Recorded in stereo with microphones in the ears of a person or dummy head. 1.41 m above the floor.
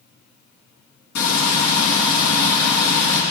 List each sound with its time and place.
1.1 s frying: 65° left (ahead or behind), 4 m